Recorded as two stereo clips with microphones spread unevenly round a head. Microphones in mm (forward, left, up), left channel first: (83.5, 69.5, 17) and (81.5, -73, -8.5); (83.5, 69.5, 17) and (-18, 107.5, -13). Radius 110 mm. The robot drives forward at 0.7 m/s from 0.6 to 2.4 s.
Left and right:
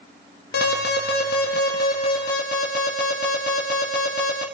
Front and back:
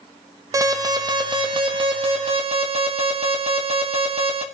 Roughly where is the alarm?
Left.